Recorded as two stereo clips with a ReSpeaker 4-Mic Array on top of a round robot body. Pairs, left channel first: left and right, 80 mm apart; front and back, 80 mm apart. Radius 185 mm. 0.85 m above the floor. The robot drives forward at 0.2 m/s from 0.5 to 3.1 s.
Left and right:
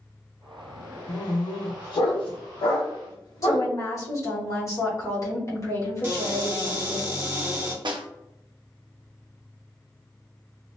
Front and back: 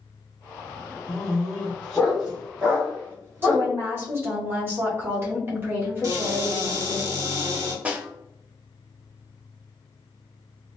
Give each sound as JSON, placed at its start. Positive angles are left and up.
{"t": 1.1, "sound": "a dog barking", "azimuth_deg": 80, "distance_m": 0.8}
{"t": 3.4, "sound": "a woman speaking", "azimuth_deg": 125, "distance_m": 1.3}
{"t": 6.0, "sound": "a cupboard door", "azimuth_deg": -150, "distance_m": 1.4}
{"t": 7.8, "sound": "a snare drum", "azimuth_deg": -110, "distance_m": 0.6}